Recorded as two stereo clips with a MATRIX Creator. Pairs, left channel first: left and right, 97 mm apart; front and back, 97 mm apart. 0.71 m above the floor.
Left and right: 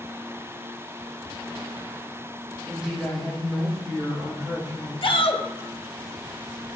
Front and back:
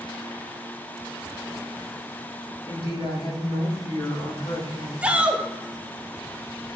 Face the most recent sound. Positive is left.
turn(degrees=105)